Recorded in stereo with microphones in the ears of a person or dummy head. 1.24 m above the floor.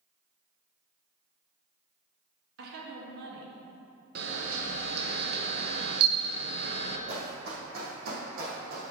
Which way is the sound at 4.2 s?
60° right (ahead or behind).